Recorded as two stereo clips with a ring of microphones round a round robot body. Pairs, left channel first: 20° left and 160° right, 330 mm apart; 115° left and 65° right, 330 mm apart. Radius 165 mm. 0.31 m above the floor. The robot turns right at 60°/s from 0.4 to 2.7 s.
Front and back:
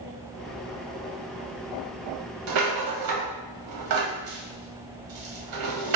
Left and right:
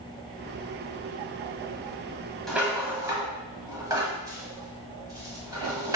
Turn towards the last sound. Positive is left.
turn(degrees=-145)